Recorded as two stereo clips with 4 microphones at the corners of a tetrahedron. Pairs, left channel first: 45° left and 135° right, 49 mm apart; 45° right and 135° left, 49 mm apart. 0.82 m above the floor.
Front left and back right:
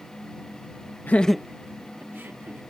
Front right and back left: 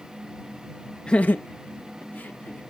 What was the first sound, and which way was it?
Laughter, 20° left.